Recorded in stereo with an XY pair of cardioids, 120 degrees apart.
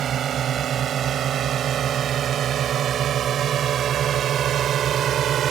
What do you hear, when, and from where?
0.0 s a drone: 55° right